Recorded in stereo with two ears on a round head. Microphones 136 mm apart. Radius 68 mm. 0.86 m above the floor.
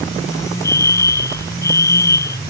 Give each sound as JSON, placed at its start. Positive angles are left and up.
{"t": 0.6, "sound": "a fire alarm", "side_deg": 20}